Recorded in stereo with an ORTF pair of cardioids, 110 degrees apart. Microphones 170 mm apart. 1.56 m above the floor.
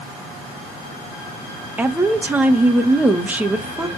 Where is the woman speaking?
10° right, 1.9 m.